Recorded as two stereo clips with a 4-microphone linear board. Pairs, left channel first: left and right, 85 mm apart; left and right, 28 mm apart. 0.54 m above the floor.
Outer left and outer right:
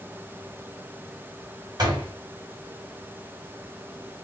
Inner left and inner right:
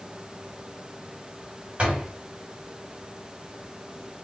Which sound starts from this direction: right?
A door slam, at 1.8 s.